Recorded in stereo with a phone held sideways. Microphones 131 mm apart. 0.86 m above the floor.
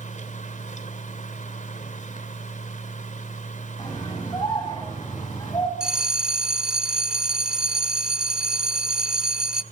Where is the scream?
35° left (ahead or behind), 8 m.